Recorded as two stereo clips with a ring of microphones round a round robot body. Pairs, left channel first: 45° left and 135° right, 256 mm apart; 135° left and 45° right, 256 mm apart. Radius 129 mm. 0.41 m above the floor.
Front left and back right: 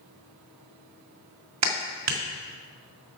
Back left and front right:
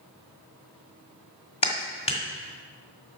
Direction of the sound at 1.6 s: 155° right.